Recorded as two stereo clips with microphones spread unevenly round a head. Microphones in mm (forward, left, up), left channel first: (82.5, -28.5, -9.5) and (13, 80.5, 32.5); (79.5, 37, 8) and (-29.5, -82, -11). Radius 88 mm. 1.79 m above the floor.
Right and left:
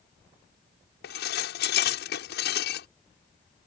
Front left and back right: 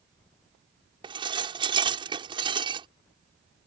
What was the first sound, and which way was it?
Dishes clattering, 70° right.